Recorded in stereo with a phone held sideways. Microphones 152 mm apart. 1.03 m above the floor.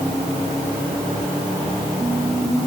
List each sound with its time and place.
Only background noise.